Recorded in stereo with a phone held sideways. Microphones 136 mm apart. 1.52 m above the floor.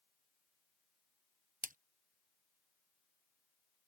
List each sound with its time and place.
1.6 s a splash: 80° right